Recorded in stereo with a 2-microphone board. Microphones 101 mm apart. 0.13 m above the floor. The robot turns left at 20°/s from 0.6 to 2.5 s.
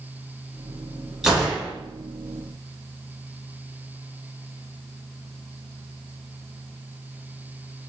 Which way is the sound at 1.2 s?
5° right (ahead or behind).